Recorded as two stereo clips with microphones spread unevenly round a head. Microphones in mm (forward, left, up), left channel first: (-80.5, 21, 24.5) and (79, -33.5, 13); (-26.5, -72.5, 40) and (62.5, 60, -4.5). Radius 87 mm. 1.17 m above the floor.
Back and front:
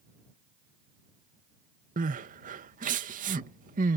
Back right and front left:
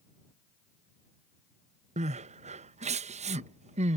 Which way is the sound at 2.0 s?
20° left.